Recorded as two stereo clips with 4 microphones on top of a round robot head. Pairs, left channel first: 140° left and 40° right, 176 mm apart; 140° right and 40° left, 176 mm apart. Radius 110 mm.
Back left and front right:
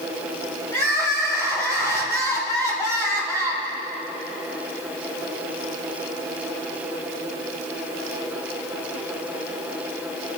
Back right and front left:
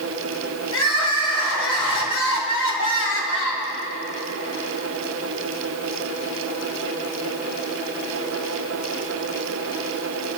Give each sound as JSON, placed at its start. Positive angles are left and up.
{"t": 0.7, "sound": "crying", "azimuth_deg": -145, "distance_m": 2.5}